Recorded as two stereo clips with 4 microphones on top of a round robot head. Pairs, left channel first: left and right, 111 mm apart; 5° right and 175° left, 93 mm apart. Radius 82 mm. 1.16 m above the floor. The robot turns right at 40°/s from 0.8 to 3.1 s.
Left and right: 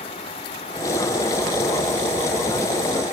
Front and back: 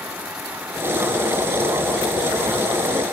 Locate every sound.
Only background noise.